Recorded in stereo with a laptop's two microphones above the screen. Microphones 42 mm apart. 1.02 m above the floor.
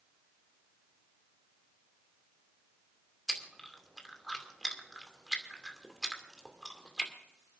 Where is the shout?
No shout in this recording.